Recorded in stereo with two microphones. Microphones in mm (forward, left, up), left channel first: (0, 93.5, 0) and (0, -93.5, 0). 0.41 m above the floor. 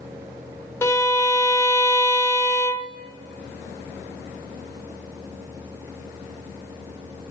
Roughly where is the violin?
Centre.